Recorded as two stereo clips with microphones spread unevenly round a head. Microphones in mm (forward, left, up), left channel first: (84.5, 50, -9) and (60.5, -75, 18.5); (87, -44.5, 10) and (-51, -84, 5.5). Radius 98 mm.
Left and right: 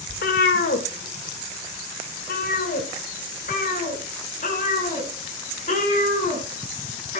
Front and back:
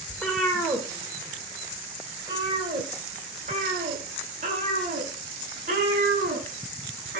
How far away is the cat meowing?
About 1.8 m.